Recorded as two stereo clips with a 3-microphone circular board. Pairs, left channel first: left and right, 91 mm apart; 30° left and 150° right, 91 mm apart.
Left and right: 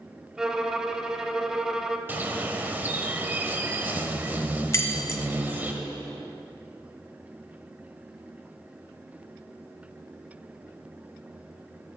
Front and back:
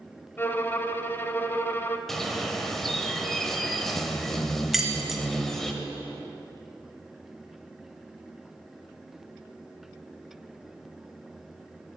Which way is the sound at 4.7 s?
125° left.